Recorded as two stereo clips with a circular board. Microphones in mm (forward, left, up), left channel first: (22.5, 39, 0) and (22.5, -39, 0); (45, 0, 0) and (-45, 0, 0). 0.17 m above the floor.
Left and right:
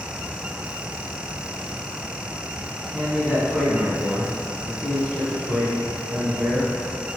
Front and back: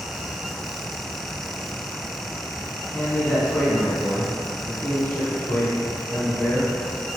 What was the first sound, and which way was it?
A man speaking, 20° right.